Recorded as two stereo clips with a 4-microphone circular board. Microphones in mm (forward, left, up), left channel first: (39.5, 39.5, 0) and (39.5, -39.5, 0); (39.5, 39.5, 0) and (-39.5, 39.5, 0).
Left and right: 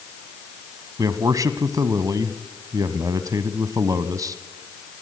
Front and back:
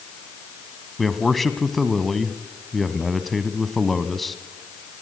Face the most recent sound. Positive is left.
turn(degrees=-90)